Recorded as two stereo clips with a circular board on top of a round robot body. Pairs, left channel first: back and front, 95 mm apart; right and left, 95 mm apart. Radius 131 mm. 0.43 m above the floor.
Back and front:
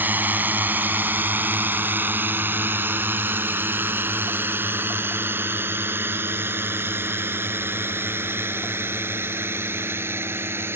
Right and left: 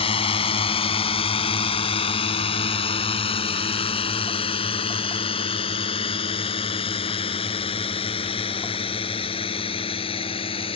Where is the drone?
70° right; by 10.8 s 65° right.